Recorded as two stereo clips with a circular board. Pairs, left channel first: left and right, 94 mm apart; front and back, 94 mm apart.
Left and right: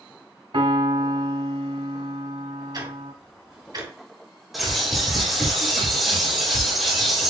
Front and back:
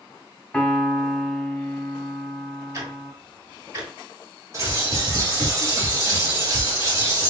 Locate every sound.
0.5 s a piano: 80° right, 0.9 m
2.7 s ticking: 130° right, 2.5 m
4.5 s a bird: straight behind, 1.7 m